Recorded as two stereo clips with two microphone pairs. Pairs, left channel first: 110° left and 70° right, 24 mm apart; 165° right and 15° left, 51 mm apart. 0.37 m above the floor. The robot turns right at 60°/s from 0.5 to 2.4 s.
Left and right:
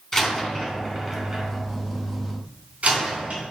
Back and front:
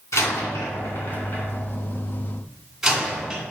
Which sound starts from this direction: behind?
A door slam, at 0.1 s.